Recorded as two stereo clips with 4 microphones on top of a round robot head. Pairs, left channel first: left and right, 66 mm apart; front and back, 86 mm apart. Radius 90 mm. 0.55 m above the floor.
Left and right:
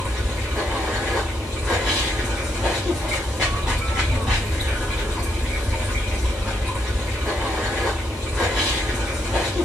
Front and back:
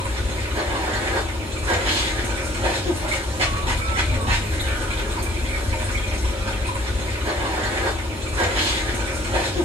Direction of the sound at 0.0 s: 175° right.